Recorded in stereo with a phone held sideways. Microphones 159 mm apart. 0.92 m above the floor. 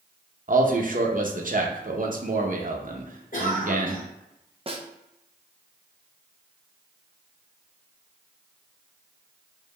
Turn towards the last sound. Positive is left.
turn(degrees=-35)  # may be behind; listen again after turning